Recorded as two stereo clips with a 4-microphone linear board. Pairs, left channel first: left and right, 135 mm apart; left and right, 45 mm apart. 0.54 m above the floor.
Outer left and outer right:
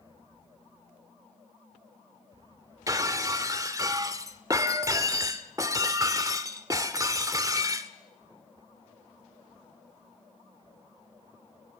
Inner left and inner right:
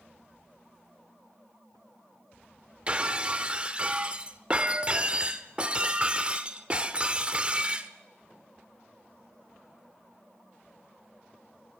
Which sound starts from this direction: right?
Breaking glass, at 2.9 s.